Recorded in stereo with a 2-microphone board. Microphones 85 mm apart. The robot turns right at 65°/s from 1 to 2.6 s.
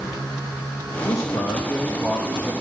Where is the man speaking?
135° left, 5.5 m; by 2.5 s 130° right, 5.5 m.